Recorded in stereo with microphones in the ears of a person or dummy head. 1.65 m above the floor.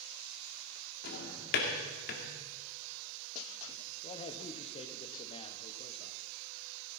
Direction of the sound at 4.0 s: 30° left (ahead or behind).